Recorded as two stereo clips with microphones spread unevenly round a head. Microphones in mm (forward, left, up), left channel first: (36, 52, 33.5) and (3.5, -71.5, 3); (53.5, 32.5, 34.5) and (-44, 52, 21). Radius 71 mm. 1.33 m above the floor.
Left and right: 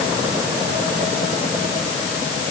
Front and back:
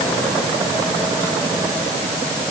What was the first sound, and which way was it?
Only background noise.